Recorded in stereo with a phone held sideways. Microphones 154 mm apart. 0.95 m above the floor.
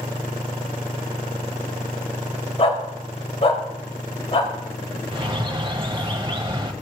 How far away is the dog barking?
About 1.7 m.